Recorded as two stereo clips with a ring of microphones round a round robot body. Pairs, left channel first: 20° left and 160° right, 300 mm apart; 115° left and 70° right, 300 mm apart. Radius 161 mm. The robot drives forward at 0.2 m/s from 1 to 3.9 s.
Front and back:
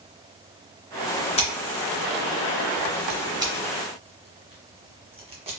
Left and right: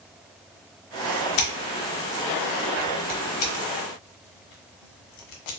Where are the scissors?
95° left, 0.7 m; by 5.5 s 130° left, 0.9 m.